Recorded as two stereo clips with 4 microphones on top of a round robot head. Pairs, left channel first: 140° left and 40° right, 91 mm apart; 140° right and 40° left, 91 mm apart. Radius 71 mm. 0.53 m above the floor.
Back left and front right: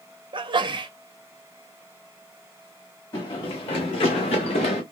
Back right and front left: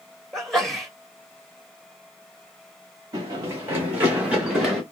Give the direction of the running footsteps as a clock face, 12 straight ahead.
9 o'clock.